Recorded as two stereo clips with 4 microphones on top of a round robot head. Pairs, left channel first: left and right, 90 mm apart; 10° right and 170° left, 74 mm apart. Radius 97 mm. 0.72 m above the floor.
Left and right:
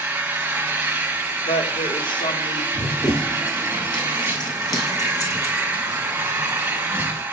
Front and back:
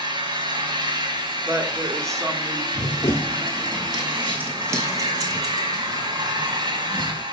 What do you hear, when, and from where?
0.0 s an engine running: 160° right, 1.7 m
1.4 s a woman speaking: 120° left, 1.8 m
2.8 s running footsteps: 15° left, 0.9 m; by 7.2 s 150° left, 1.9 m